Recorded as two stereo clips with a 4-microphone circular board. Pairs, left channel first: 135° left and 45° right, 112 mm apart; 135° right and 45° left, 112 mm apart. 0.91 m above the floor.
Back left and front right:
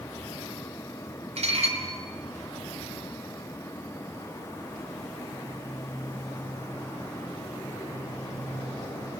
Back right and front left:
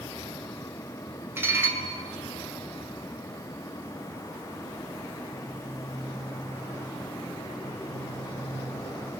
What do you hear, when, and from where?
1.4 s dishes clattering: 25° right, 3 m